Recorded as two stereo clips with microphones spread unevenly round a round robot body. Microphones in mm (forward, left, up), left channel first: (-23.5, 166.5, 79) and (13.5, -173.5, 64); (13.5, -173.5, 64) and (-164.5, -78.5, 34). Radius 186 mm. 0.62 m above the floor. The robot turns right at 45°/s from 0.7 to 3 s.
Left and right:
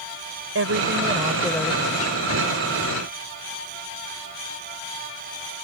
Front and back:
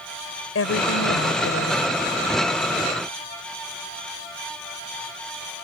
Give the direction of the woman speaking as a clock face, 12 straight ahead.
1 o'clock.